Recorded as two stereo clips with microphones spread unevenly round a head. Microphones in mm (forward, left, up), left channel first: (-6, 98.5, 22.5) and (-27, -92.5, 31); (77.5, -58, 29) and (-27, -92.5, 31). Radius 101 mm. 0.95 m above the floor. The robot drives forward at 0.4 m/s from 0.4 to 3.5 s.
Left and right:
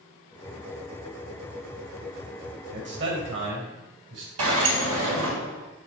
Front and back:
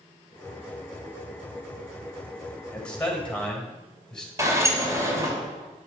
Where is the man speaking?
60° right, 6 m; by 4.3 s 65° right, 6 m.